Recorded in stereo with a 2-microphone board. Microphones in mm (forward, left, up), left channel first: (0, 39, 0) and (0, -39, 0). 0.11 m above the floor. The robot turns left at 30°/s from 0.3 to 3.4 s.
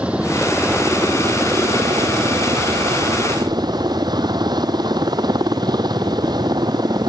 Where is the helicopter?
15° right; by 7.1 s 105° right.